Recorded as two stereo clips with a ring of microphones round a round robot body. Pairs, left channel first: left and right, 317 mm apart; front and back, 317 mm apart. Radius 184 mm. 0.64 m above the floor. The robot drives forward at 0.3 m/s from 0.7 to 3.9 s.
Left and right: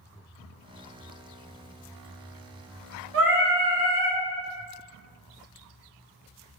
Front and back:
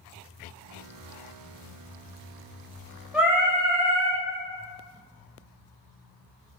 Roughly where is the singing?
Right.